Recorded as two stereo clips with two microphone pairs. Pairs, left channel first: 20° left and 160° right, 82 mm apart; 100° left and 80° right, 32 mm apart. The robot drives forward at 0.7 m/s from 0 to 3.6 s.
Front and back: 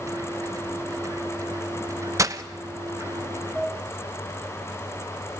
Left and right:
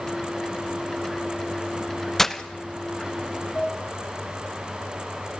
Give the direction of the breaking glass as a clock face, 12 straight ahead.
6 o'clock.